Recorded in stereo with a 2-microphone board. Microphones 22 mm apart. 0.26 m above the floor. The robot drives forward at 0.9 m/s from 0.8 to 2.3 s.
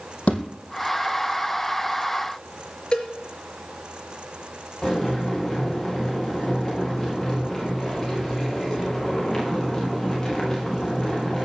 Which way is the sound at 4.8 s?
15° left (ahead or behind).